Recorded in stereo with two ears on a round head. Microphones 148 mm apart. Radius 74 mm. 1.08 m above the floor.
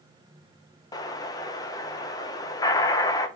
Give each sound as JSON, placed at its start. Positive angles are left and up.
{"t": 0.9, "sound": "an explosion", "side_deg": 20, "distance_m": 0.6}